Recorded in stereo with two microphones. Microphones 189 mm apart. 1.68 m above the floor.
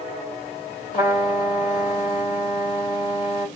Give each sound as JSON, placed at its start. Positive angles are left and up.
{"t": 0.9, "sound": "a trumpet", "side_deg": 45, "distance_m": 1.9}